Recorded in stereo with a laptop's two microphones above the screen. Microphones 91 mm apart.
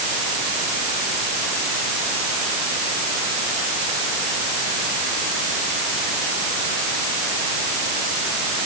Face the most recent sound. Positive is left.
No sound to turn to.